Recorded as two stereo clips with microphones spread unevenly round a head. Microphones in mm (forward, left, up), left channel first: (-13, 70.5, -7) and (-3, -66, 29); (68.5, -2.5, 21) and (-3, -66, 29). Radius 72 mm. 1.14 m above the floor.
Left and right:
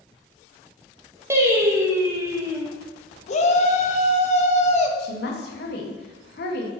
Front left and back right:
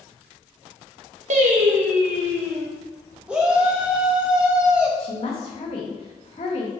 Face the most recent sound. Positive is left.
turn(degrees=90)